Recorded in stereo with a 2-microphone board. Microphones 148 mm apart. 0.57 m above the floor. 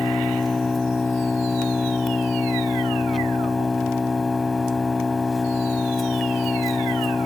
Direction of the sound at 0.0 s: Centre (ahead or behind).